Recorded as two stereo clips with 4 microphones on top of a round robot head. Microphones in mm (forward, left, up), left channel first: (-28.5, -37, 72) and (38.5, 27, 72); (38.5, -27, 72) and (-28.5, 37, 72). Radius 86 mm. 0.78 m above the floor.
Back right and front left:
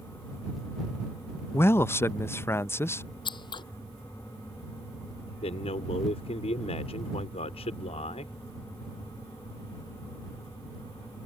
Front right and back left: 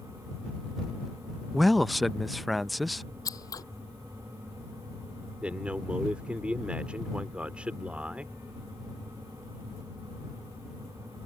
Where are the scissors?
95° right.